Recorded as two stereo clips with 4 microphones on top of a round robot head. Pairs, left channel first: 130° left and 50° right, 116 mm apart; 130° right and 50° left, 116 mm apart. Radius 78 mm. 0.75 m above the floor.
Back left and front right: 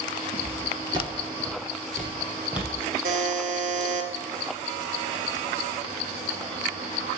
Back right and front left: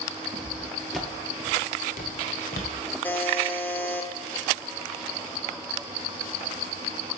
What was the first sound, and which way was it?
Footsteps, 10° left.